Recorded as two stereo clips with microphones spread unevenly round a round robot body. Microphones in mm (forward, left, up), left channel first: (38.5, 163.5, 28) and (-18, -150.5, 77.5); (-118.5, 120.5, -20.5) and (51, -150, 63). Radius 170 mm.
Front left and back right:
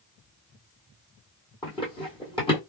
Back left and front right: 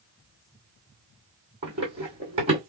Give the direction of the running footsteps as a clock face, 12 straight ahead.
12 o'clock.